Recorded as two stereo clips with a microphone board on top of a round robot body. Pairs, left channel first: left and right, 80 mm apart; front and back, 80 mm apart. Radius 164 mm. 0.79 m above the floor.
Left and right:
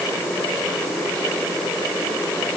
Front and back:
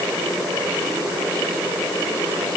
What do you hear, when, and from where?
Only background noise.